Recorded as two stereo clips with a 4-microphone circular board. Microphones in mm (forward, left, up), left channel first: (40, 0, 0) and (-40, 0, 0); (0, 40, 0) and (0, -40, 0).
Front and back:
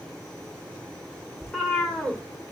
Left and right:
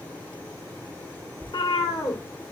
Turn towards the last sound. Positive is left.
turn(degrees=80)